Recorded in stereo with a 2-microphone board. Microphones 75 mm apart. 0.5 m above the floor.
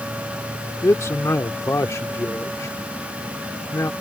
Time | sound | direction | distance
0.8 | a man speaking | 40° left (ahead or behind) | ?